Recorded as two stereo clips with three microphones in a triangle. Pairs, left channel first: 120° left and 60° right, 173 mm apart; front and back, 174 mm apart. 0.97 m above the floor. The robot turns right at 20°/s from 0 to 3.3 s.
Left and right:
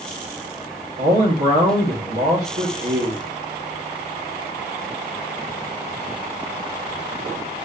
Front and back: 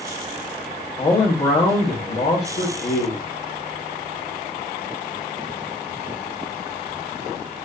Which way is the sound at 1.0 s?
60° right.